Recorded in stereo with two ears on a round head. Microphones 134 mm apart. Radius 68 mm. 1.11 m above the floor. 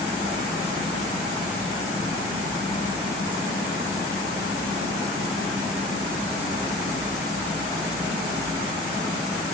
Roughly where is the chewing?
No chewing in this recording.